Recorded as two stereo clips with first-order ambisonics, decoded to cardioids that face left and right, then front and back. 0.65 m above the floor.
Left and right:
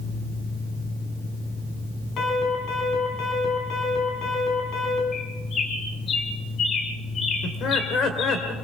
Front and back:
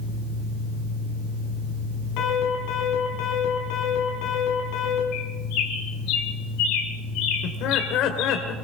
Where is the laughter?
35° left, 2 m.